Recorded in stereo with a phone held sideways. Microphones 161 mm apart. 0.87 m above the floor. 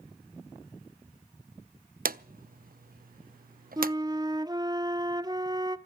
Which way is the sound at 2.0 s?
60° right (ahead or behind).